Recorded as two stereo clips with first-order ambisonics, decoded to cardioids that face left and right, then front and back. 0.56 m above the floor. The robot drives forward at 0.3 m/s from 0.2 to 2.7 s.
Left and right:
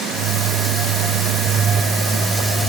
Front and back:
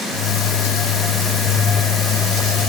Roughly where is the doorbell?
I don't hear a doorbell.